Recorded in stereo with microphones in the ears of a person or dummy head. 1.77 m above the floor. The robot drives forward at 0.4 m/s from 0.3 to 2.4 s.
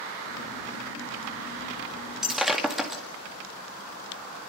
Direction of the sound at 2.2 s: 5° right (ahead or behind).